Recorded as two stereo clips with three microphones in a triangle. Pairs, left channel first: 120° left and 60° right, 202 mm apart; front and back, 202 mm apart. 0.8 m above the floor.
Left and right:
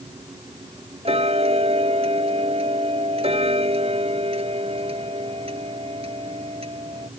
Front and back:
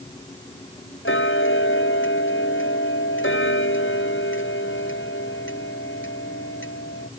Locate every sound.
1.1 s ticking: straight ahead